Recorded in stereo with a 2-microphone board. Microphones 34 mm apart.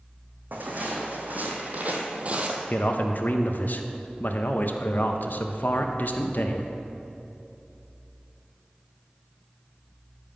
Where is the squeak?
No squeak in this recording.